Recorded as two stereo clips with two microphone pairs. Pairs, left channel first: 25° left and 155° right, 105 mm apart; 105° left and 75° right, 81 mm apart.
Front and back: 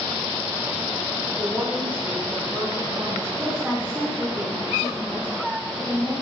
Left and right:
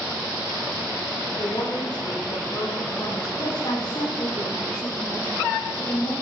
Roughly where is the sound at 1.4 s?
Behind left.